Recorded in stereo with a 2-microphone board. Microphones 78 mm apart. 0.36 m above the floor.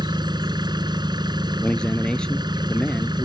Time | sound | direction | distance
0.0 | an engine running | 70° right (ahead or behind) | ?
1.6 | a man speaking | 15° left (ahead or behind) | ?